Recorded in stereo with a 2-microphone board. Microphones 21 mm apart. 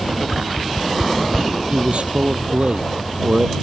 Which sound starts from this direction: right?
A man speaking, at 1.7 s.